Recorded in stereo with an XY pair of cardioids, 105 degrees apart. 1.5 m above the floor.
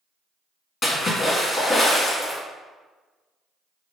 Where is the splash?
35° left, 1.6 m.